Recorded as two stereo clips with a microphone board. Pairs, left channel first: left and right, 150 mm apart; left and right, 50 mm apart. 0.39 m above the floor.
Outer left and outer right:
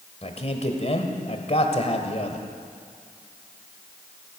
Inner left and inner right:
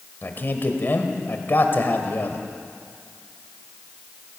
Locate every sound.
0.2 s a man speaking: 45° left (ahead or behind), 1.6 m